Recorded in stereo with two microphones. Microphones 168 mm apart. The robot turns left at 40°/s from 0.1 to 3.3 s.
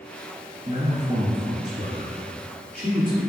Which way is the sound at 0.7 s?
25° right (ahead or behind).